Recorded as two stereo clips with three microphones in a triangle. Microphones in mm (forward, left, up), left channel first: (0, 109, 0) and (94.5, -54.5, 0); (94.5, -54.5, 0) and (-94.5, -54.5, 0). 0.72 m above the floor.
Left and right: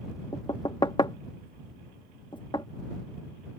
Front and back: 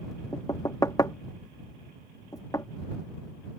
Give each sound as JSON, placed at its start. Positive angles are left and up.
{"t": 0.3, "sound": "knocking", "azimuth_deg": 65}